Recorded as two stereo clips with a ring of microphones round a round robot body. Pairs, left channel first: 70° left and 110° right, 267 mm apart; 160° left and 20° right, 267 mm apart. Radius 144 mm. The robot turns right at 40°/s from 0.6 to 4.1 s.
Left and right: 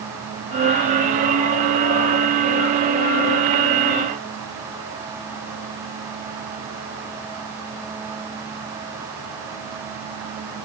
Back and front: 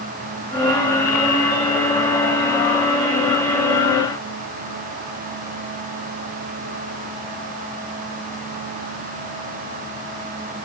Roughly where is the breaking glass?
I don't hear breaking glass.